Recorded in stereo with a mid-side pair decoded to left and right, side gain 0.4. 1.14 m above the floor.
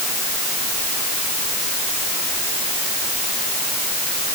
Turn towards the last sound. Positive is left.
No sound to turn to.